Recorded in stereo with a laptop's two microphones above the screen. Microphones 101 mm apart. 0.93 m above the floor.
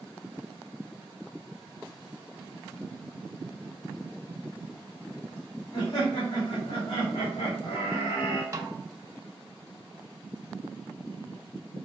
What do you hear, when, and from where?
5.7 s laughter: 50° left (ahead or behind), 1.9 m
8.5 s a snare drum: 30° right (ahead or behind), 0.8 m